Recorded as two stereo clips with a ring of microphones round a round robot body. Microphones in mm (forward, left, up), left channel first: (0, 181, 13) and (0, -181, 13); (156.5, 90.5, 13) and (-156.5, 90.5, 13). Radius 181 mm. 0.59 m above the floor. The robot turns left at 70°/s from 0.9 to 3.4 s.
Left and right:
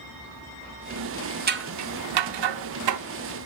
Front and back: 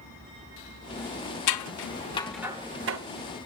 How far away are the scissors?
About 0.8 m.